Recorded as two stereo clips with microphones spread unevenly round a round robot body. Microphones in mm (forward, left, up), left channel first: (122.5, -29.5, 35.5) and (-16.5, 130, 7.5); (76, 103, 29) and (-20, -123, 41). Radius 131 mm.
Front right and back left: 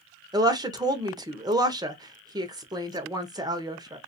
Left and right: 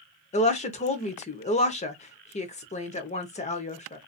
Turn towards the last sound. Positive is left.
turn(degrees=95)